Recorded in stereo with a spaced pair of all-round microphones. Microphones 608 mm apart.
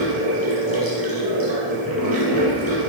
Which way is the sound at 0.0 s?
35° right (ahead or behind).